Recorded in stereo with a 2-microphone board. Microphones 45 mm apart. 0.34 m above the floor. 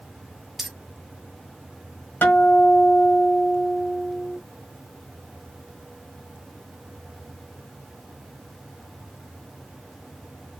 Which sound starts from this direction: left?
A guitar, at 2.2 s.